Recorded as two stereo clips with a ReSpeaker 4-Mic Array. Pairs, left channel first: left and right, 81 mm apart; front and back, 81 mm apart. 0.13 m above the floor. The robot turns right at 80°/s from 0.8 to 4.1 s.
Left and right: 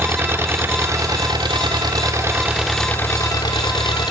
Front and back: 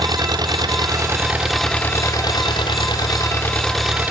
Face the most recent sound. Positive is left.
turn(degrees=115)